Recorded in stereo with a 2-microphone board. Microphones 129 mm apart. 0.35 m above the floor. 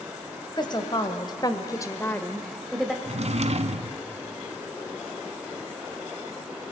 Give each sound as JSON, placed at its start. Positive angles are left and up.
{"t": 0.6, "sound": "a woman speaking", "side_deg": 35, "distance_m": 2.0}
{"t": 3.0, "sound": "a drawer", "side_deg": -55, "distance_m": 1.3}